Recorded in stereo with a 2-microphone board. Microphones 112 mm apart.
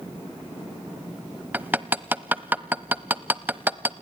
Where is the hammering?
15° right (ahead or behind), 0.6 m.